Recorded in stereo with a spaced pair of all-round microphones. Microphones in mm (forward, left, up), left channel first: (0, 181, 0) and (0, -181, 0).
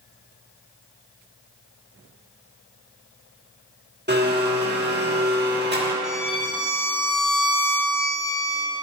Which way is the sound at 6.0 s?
55° right (ahead or behind).